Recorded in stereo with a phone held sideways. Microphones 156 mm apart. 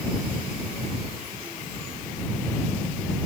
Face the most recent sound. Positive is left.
No sound to turn to.